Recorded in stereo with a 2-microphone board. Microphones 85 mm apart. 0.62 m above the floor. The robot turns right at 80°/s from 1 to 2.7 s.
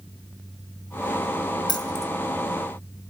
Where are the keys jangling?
65° left (ahead or behind), 1.1 m; by 2.1 s 40° left (ahead or behind), 1.1 m.